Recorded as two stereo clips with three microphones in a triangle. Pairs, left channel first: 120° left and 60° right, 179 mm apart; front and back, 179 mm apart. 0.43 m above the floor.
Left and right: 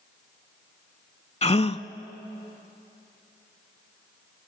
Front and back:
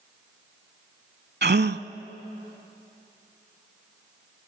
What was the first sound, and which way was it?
A gasp, 170° left.